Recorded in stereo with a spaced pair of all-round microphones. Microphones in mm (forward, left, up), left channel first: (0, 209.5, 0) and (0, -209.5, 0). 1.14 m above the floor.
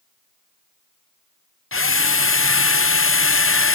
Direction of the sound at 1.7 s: 35° left (ahead or behind).